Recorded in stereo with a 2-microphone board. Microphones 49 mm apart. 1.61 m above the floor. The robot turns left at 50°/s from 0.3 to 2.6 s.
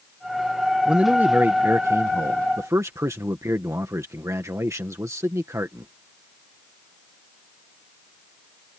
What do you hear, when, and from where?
0.8 s a man speaking: 20° right; by 5.9 s 105° right